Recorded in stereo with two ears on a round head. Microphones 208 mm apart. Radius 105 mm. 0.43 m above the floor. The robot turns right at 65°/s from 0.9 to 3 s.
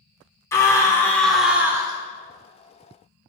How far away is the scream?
About 0.9 m.